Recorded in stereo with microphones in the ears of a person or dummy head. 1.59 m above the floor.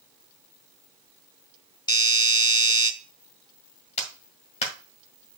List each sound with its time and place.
1.9 s a doorbell: 20° left (ahead or behind), 0.7 m
4.0 s a clap: 40° left (ahead or behind), 1.8 m